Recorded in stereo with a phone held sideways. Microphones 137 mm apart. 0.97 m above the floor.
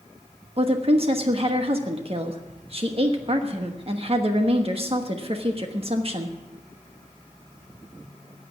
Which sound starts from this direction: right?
A woman speaking, at 0.6 s.